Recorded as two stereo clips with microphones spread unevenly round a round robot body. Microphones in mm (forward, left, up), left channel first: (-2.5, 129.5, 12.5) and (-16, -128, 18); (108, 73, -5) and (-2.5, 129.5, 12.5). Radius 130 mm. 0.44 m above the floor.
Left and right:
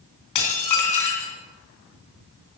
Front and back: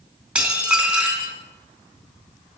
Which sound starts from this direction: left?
Dishes clattering, at 0.3 s.